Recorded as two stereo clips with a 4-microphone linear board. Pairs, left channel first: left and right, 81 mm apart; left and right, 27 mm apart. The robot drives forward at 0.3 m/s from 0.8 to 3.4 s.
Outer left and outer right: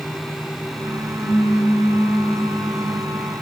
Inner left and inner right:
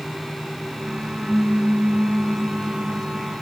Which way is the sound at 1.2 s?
55° left (ahead or behind).